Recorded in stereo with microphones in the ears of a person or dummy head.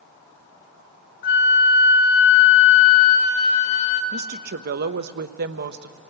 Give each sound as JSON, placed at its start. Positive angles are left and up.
{"t": 1.2, "sound": "a flute", "side_deg": 55, "distance_m": 2.5}
{"t": 4.1, "sound": "a woman speaking", "side_deg": -55, "distance_m": 0.8}